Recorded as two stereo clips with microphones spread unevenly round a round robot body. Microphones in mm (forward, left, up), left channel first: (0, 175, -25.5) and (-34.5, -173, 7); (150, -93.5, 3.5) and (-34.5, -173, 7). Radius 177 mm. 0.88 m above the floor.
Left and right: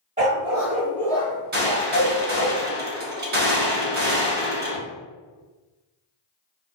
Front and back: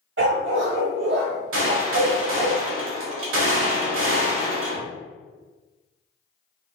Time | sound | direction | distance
0.2 | a dog barking | 160° right | 1.1 m
1.5 | a gunshot | 155° right | 1.0 m